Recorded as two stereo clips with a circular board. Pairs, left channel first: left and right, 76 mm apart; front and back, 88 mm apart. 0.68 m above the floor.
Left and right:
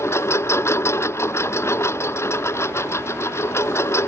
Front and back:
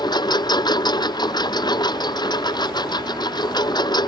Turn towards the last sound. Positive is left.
turn(degrees=35)